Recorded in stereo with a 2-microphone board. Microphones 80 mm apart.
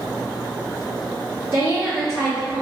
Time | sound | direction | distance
1.5 | a woman speaking | 35° right (ahead or behind) | 1.9 m